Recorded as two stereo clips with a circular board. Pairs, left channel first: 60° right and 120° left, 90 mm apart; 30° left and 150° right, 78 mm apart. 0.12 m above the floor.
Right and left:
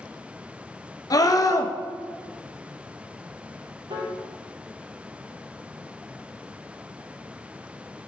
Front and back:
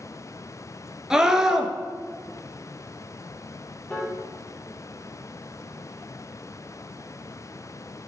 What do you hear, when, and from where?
1.1 s a scream: 70° right, 1.5 m
3.9 s a piano: 110° left, 3.5 m